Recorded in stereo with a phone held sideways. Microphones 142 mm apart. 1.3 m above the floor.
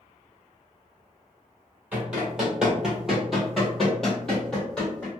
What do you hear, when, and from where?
1.9 s running footsteps: 10° right (ahead or behind), 1.4 m; by 5.1 s 5° left (ahead or behind), 1.9 m